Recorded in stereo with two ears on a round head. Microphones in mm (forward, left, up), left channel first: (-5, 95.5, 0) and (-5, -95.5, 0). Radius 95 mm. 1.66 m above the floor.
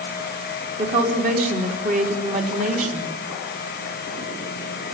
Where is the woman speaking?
40° right (ahead or behind), 3.5 m.